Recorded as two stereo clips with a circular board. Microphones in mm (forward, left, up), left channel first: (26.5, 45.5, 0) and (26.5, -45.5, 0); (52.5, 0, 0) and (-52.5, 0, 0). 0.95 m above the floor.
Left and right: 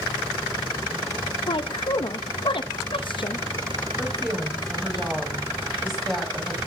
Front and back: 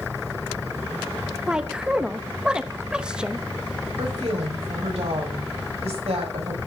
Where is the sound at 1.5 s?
100° left, 0.9 m.